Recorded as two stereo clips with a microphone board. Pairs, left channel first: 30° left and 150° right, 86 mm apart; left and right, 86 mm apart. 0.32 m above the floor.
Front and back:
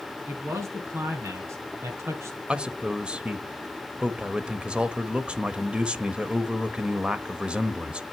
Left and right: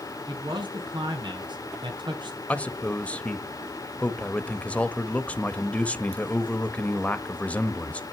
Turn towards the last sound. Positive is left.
turn(degrees=145)